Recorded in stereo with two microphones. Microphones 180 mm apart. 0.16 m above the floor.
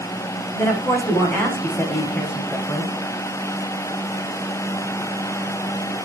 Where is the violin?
I don't hear a violin.